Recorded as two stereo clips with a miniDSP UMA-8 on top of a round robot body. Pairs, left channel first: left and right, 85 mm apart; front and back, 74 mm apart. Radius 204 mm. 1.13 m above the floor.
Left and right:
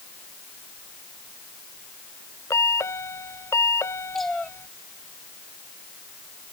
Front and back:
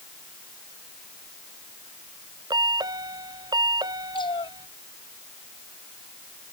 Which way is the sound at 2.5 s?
150° left.